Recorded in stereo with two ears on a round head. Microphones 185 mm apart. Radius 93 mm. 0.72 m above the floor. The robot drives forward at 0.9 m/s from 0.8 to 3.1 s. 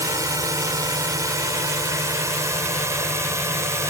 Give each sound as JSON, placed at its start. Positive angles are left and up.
{"t": 0.0, "sound": "a drone", "side_deg": -20}